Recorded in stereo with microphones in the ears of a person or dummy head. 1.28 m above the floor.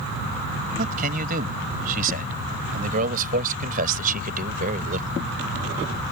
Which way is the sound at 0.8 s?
45° right (ahead or behind).